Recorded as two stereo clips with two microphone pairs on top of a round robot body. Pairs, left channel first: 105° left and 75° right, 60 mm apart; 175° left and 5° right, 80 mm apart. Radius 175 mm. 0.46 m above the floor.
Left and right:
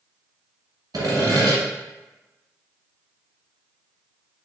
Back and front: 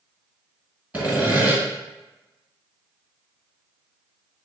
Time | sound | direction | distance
0.9 | sawing | 75° right | 1.1 m